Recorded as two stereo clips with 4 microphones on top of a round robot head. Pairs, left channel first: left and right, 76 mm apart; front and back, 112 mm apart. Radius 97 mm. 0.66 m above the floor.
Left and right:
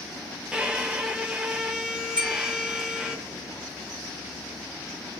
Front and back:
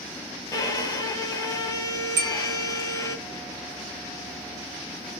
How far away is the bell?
About 1.4 m.